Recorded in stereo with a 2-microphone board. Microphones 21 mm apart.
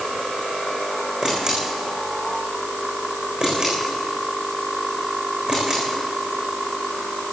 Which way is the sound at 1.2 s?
35° right (ahead or behind).